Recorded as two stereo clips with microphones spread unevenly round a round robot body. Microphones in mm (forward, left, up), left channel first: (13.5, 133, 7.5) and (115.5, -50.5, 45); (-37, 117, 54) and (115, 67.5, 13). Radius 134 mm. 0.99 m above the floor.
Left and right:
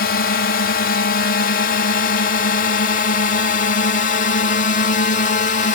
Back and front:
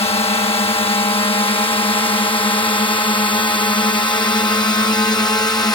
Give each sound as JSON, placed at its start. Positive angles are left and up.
{"t": 0.0, "sound": "a drone", "azimuth_deg": 105}